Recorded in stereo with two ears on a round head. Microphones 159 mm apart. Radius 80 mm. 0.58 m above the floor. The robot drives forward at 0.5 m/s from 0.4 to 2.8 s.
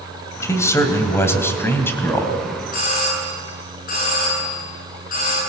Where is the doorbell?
55° left (ahead or behind), 8.5 m.